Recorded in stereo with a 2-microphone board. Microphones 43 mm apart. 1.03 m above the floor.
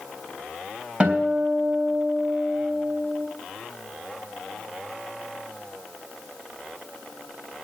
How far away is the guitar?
About 3.5 m.